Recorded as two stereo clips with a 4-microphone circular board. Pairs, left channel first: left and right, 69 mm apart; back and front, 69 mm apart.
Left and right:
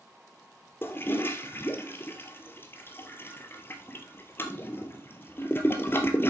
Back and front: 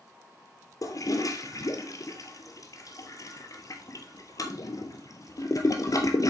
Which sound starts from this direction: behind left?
A toilet flushing, at 0.8 s.